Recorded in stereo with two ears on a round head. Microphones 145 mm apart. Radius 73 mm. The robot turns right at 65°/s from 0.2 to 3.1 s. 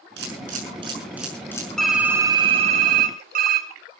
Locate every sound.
0.2 s a camera shutter: 70° right (ahead or behind), 6 m; by 1.7 s 25° left (ahead or behind), 6 m
1.8 s typing on a keyboard: 175° left, 2.5 m; by 3.7 s 100° right, 2.5 m